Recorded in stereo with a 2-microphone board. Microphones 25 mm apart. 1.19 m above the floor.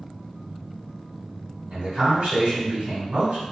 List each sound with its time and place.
1.7 s a man speaking: 55° right (ahead or behind), 1.3 m